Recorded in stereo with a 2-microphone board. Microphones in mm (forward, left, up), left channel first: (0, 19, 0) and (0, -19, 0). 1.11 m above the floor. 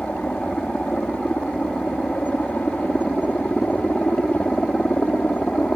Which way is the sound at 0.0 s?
50° left (ahead or behind).